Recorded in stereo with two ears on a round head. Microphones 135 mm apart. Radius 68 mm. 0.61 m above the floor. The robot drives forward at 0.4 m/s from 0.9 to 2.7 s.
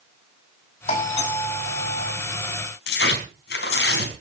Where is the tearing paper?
85° left, 4 m.